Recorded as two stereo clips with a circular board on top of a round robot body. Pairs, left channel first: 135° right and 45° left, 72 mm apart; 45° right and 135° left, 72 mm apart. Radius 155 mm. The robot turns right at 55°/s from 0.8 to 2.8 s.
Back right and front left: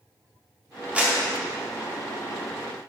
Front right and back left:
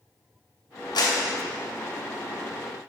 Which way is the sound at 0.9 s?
30° right.